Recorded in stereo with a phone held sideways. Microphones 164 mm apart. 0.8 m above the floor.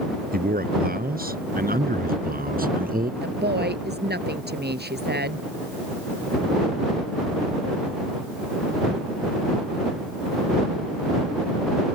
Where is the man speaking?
65° right (ahead or behind); by 3.1 s 60° right (ahead or behind).